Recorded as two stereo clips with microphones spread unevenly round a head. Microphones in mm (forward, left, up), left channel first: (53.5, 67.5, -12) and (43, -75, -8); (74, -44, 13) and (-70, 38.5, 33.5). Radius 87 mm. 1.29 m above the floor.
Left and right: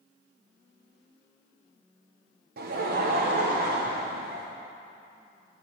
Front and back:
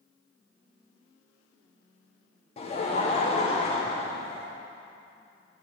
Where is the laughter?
80° right, 0.8 m.